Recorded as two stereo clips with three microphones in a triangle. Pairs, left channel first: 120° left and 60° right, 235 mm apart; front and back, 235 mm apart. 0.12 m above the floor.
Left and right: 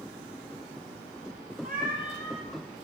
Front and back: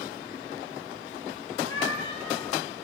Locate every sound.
1.6 s a cat meowing: 10° right, 6.5 m